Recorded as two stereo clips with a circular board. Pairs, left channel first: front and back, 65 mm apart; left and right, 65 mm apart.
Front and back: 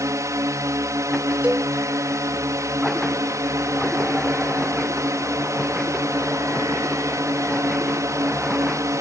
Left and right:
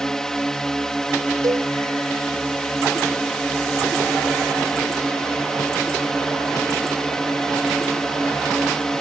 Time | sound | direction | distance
0.0 | a drone | 170° left | ?
1.4 | a cowbell | 110° right | ?